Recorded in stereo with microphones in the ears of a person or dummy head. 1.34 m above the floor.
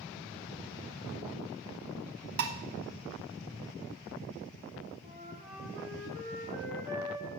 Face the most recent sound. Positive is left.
turn(degrees=-40)  # may be behind; listen again after turning